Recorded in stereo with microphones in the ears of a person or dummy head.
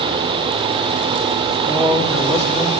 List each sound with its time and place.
1.7 s a man speaking: 5° left (ahead or behind), 1.4 m